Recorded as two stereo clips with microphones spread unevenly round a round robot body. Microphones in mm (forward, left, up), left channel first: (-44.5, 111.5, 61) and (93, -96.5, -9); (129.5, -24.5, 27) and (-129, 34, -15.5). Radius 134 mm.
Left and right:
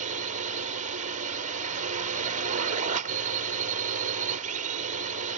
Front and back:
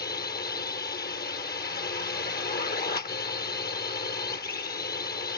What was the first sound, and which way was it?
A drone, 65° right.